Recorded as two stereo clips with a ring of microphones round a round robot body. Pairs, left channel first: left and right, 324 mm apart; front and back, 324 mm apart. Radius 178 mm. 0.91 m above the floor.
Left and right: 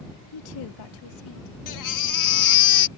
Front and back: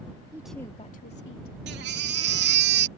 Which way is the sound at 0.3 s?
100° left.